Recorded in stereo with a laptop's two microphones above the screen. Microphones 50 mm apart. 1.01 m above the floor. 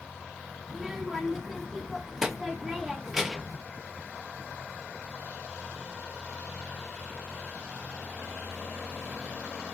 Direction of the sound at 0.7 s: 10° right (ahead or behind).